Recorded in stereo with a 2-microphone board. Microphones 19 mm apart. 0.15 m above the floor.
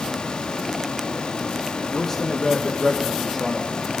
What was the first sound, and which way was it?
A man speaking, 15° left (ahead or behind).